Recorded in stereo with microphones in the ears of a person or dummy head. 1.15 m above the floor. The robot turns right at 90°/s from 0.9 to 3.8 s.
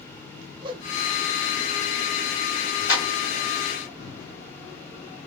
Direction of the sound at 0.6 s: 30° right (ahead or behind).